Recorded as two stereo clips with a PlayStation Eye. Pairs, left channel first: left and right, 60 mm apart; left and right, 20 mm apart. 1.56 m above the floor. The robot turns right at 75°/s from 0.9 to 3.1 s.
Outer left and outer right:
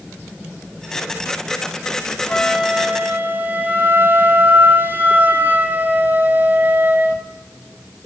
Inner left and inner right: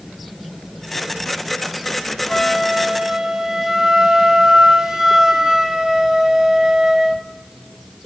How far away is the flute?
About 2 m.